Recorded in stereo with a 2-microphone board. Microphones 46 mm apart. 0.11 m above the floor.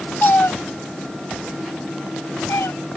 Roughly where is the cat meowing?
Left.